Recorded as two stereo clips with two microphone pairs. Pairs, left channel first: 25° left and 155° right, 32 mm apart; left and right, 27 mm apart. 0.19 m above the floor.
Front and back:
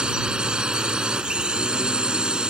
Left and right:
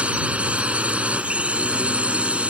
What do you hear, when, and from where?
0.0 s a drone: 100° right